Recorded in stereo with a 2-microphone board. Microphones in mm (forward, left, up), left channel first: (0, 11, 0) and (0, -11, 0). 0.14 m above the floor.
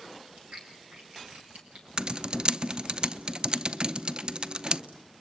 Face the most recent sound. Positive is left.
turn(degrees=-45)  # may be behind; listen again after turning